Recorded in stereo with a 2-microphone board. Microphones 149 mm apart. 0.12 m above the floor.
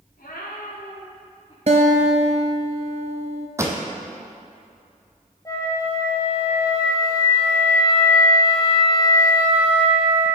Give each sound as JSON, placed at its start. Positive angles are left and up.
{"t": 0.2, "sound": "a cat meowing", "side_deg": 90, "distance_m": 2.5}
{"t": 1.7, "sound": "a guitar", "side_deg": -50, "distance_m": 0.7}
{"t": 3.6, "sound": "a pop", "side_deg": -20, "distance_m": 1.0}
{"t": 5.5, "sound": "a flute", "side_deg": 25, "distance_m": 1.9}